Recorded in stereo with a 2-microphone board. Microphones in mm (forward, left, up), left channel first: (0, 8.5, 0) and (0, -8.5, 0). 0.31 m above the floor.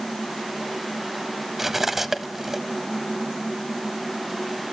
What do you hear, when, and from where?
1.6 s cutlery clinking: 15° right (ahead or behind), 1.0 m